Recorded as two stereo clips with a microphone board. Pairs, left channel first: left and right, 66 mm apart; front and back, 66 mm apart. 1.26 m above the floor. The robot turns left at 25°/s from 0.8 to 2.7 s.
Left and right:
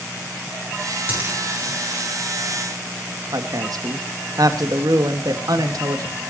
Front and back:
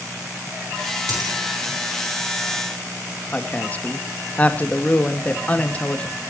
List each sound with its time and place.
1.1 s a dropped coin: 150° right, 8 m; by 1.4 s 160° right, 8 m
3.3 s a woman speaking: 70° right, 2 m